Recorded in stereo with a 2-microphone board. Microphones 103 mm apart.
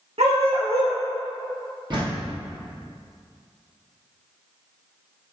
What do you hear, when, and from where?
0.2 s a dog barking: 80° right, 2.0 m
1.9 s a door slam: 45° right (ahead or behind), 3 m